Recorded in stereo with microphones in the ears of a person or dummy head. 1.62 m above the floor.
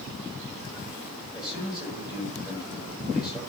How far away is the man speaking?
About 7 m.